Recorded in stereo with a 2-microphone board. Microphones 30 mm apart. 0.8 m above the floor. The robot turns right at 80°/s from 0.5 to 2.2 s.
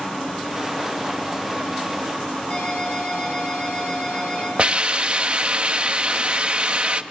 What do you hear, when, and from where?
2.5 s a ringtone: 35° left (ahead or behind), 8 m
4.6 s a hiss: 40° right (ahead or behind), 1.0 m